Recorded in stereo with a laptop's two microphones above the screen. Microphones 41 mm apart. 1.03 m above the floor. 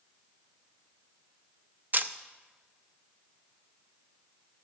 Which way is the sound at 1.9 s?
45° right (ahead or behind).